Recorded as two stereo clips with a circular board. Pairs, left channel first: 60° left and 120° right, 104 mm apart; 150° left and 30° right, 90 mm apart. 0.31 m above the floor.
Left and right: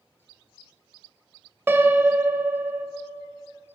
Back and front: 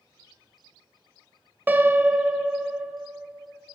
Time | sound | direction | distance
1.7 | a piano | 75° right | 0.7 m